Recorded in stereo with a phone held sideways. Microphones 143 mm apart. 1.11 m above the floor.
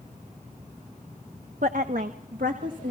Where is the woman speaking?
65° right (ahead or behind), 0.9 m; by 2.9 s 70° right (ahead or behind), 2 m.